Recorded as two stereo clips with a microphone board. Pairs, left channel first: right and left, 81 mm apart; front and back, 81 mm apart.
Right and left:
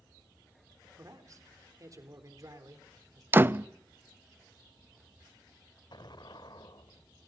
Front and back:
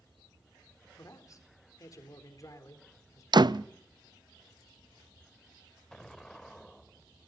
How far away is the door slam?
About 0.5 m.